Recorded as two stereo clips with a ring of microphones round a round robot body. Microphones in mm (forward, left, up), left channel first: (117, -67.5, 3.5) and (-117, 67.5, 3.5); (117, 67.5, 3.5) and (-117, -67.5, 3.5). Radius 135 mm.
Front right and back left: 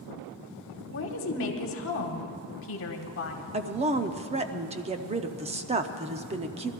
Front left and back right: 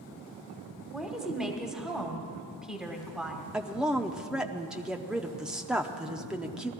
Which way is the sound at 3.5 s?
125° left.